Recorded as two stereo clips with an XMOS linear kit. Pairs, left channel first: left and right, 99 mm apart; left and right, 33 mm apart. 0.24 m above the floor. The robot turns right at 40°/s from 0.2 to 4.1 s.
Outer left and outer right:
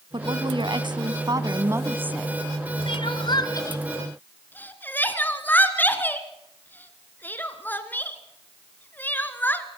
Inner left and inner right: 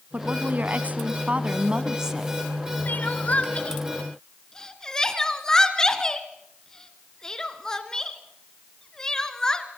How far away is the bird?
I don't hear a bird.